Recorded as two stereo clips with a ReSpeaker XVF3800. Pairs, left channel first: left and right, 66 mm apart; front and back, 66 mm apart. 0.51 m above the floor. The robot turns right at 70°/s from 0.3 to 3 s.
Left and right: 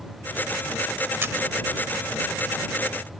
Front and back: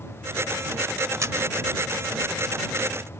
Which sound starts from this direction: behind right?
A camera shutter, at 1.2 s.